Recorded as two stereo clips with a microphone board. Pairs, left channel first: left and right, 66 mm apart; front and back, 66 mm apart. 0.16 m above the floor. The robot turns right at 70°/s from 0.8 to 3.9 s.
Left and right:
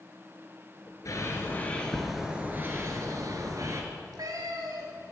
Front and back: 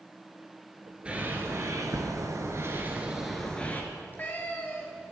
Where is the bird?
110° left, 1.8 m; by 3.8 s 60° right, 1.8 m.